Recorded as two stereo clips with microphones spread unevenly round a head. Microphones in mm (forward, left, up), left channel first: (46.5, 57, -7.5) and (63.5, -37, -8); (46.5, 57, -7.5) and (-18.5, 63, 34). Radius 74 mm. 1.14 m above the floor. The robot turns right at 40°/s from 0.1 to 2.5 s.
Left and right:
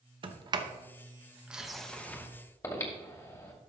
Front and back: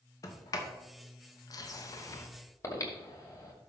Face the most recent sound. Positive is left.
turn(degrees=45)